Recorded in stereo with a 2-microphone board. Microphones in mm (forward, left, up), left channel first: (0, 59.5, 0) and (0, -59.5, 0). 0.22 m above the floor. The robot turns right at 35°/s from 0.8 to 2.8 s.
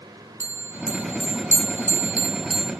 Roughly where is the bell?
Right.